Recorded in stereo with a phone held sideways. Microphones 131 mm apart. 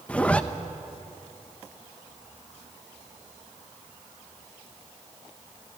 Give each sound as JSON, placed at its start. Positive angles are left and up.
{"t": 0.1, "sound": "a zipper", "side_deg": 10, "distance_m": 0.7}